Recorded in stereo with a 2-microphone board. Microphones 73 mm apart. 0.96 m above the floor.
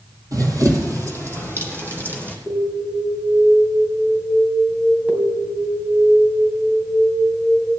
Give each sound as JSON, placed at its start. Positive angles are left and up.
{"t": 0.3, "sound": "running footsteps", "side_deg": -55, "distance_m": 1.6}
{"t": 2.5, "sound": "an alarm", "side_deg": -20, "distance_m": 2.5}